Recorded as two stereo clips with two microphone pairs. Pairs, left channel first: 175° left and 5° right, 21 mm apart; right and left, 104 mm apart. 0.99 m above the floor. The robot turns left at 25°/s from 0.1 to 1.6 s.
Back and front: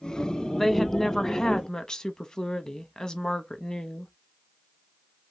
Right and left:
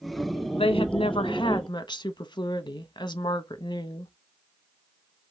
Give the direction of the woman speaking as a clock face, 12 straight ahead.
3 o'clock.